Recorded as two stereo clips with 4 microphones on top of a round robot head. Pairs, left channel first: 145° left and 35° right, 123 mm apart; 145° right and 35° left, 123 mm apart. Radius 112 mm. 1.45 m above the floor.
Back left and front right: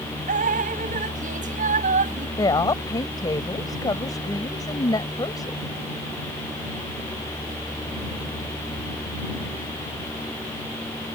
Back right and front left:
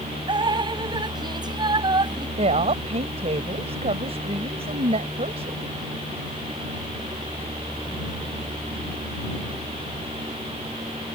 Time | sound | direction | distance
0.3 | dripping | 20° right | ?
2.4 | a woman speaking | 80° left | ?